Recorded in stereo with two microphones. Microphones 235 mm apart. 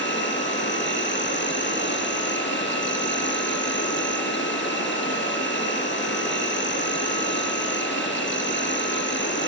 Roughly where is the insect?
Left.